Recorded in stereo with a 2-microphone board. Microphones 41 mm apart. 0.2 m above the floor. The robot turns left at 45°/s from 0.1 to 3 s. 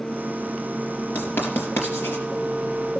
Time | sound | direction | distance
1.1 | writing | 50° left (ahead or behind) | 4 m